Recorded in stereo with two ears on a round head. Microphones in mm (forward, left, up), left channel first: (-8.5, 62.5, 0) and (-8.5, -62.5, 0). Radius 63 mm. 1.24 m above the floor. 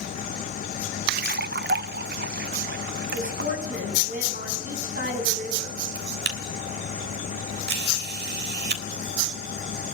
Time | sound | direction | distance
1.1 | a splash | 70° right (ahead or behind) | 0.7 m
3.1 | a woman speaking | 65° right (ahead or behind) | 9.5 m
6.0 | a camera shutter | 80° right | 3.5 m